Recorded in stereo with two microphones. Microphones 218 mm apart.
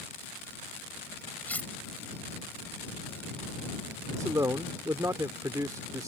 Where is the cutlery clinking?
5° left (ahead or behind).